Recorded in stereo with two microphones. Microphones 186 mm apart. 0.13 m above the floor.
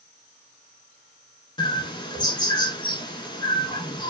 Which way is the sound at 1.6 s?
25° left (ahead or behind).